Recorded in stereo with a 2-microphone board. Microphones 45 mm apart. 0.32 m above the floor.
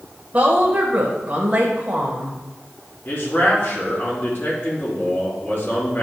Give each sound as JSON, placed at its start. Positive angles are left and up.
{"t": 0.3, "sound": "a woman speaking", "side_deg": -35, "distance_m": 1.3}
{"t": 3.0, "sound": "a man speaking", "side_deg": 50, "distance_m": 3.5}